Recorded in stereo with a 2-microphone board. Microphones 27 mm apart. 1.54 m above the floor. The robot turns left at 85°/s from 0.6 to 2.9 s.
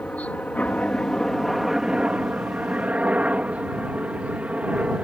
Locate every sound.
0.0 s a helicopter: 65° left (ahead or behind); by 5.0 s 55° right (ahead or behind)